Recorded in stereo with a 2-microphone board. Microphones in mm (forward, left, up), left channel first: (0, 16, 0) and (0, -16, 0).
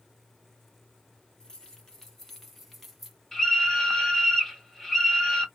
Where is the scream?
15° left (ahead or behind), 1.5 m.